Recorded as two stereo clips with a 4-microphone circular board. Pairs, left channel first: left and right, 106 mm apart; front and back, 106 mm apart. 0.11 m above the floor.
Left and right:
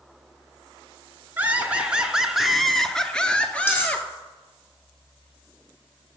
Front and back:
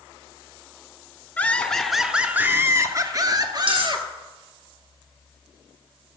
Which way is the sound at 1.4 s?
45° right.